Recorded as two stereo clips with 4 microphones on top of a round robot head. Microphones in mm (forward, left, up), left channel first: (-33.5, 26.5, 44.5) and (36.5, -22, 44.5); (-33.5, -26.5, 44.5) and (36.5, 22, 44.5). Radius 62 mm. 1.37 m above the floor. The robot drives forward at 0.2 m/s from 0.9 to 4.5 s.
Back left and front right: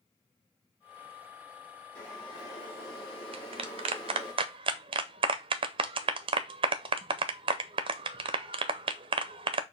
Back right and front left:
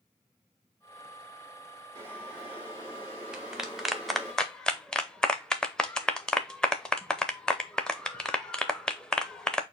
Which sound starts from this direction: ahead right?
A clap, at 3.3 s.